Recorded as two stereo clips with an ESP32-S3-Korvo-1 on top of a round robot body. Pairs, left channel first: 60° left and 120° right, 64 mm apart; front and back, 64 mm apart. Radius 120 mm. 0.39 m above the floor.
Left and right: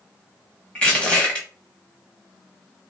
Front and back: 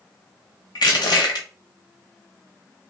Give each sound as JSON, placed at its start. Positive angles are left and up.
{"t": 0.8, "sound": "crushing", "azimuth_deg": -10, "distance_m": 0.7}